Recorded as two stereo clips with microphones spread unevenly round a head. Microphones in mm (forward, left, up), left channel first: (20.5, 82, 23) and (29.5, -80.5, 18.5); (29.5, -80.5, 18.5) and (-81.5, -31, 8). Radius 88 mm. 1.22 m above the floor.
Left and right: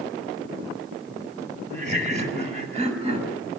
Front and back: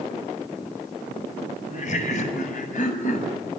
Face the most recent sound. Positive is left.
turn(degrees=-35)